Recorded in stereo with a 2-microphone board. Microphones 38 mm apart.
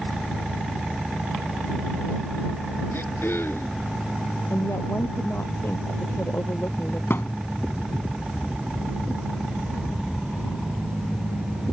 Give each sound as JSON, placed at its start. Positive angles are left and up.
{"t": 2.9, "sound": "throat clearing", "side_deg": 80}
{"t": 4.5, "sound": "a woman speaking", "side_deg": 75}
{"t": 7.1, "sound": "a thud", "side_deg": 75}